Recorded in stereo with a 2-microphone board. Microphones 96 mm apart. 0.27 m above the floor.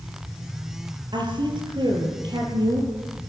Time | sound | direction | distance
1.1 | a woman speaking | 55° right (ahead or behind) | 7.5 m